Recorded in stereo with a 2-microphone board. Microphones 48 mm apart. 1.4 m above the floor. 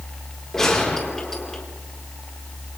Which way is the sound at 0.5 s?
5° left (ahead or behind).